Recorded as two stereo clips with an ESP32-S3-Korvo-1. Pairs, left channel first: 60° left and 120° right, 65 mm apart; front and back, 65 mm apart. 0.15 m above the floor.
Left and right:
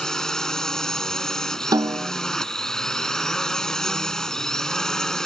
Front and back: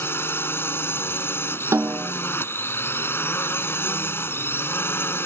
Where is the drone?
15° right.